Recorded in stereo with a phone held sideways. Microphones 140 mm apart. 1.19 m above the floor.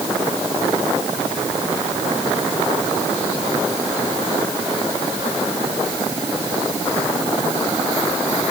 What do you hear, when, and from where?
Only background noise.